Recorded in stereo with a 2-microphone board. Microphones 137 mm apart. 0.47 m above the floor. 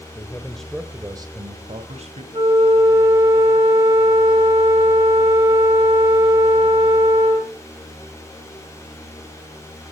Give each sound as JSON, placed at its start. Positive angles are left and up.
{"t": 0.1, "sound": "a man speaking", "side_deg": 30, "distance_m": 1.5}
{"t": 2.3, "sound": "a flute", "side_deg": -40, "distance_m": 4.5}